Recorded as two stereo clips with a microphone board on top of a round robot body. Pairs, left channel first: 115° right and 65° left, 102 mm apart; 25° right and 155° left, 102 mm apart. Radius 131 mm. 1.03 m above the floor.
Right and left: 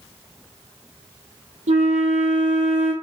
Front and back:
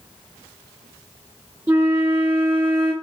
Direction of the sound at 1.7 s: 85° left.